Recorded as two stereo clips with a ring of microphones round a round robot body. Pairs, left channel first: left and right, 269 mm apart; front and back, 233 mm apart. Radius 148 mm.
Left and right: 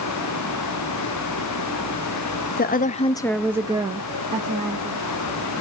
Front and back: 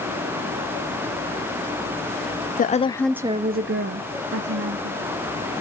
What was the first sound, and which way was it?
A woman speaking, 45° left.